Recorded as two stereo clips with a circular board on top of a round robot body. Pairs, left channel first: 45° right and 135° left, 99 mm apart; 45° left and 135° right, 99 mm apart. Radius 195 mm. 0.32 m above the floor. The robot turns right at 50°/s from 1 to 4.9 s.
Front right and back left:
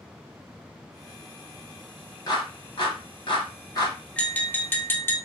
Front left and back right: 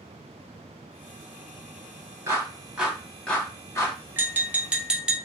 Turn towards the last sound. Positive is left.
turn(degrees=-65)